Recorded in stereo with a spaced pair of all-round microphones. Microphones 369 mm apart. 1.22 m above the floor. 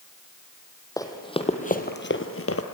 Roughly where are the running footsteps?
Centre.